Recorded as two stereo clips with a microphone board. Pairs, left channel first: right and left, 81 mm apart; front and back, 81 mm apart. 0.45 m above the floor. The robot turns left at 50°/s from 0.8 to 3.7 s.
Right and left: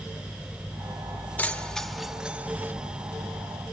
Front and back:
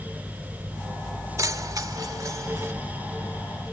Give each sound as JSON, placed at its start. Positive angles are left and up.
{"t": 1.4, "sound": "keys jangling", "azimuth_deg": -155, "distance_m": 1.0}